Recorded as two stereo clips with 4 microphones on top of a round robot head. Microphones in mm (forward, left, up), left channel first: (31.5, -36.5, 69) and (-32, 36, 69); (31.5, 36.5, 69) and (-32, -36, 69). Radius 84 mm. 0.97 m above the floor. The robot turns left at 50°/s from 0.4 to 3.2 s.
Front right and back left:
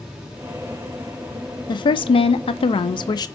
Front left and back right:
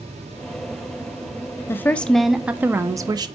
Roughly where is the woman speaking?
Ahead.